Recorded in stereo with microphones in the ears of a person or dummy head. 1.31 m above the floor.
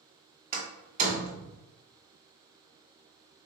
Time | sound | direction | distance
0.5 | a door slam | 50° right (ahead or behind) | 1.5 m